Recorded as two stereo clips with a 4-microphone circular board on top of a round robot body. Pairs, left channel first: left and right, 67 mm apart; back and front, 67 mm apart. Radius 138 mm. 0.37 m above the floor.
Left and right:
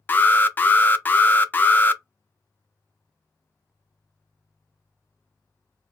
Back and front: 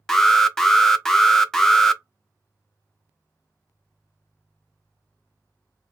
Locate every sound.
0.1 s an alarm: 105° left, 0.5 m